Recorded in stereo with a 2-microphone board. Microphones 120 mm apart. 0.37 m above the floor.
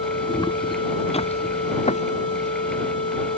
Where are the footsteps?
35° left (ahead or behind); by 2.5 s 75° left (ahead or behind).